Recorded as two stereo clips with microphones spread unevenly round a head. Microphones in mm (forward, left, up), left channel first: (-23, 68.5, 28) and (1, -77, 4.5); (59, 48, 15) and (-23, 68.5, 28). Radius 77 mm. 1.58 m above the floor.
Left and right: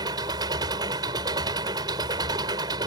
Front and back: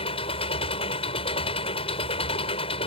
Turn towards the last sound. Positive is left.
turn(degrees=-15)